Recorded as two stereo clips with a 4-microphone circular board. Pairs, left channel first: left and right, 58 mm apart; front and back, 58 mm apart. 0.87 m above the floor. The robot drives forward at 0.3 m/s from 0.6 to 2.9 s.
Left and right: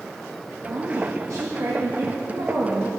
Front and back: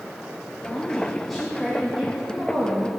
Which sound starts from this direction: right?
A woman speaking, at 0.7 s.